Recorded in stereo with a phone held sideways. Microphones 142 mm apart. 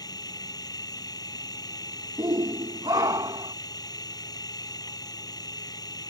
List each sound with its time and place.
0.0 s a machine running: 30° left (ahead or behind)
2.2 s a shout: 30° right (ahead or behind)